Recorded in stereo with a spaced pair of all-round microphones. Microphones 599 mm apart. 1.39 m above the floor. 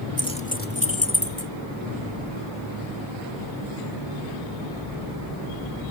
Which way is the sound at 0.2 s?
5° left (ahead or behind).